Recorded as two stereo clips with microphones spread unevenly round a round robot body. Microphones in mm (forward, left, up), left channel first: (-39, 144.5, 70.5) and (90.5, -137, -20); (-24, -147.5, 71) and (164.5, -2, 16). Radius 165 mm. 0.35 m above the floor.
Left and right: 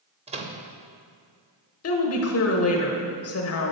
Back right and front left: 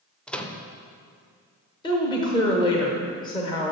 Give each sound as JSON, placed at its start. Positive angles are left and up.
{"t": 0.3, "sound": "a microwave", "azimuth_deg": -40, "distance_m": 0.7}
{"t": 1.8, "sound": "a woman speaking", "azimuth_deg": 140, "distance_m": 0.9}